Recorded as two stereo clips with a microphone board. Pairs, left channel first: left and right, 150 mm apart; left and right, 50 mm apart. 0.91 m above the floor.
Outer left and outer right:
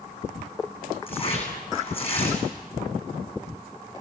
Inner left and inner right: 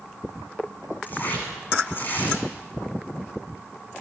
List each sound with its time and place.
1.1 s tearing paper: 40° left (ahead or behind), 9 m